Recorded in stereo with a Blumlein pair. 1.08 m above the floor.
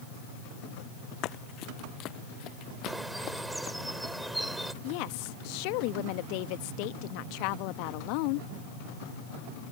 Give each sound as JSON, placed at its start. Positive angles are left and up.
{"t": 1.2, "sound": "running footsteps", "azimuth_deg": 35}
{"t": 2.9, "sound": "a bird", "azimuth_deg": -5}
{"t": 4.8, "sound": "a woman speaking", "azimuth_deg": 45}